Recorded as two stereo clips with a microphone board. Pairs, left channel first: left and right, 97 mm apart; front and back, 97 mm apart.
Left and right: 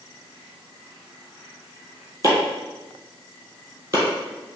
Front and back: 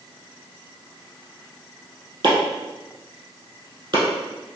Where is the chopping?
145° right, 1.8 m.